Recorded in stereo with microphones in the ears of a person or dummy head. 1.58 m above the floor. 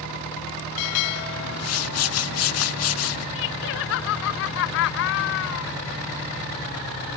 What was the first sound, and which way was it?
A whoosh, 75° left (ahead or behind).